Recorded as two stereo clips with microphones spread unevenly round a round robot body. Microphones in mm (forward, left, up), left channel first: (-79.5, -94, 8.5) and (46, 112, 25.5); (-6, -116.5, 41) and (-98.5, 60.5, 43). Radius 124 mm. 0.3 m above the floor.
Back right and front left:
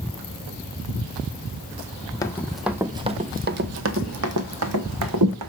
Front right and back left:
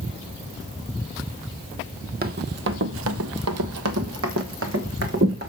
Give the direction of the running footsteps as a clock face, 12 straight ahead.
7 o'clock.